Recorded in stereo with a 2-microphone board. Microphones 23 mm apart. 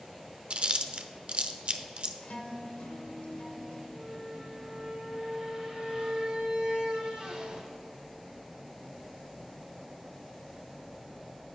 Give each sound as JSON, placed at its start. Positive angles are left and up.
{"t": 0.5, "sound": "chewing", "side_deg": -50, "distance_m": 0.6}
{"t": 2.2, "sound": "a guitar", "side_deg": 65, "distance_m": 1.0}
{"t": 3.9, "sound": "a squeak", "side_deg": -35, "distance_m": 1.4}